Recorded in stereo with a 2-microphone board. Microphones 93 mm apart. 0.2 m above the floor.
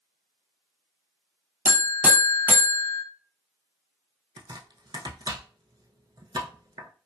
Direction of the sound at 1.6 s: 20° right (ahead or behind).